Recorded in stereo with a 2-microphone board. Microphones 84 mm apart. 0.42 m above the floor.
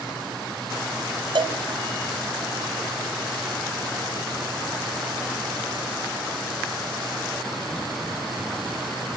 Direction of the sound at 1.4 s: 65° right (ahead or behind).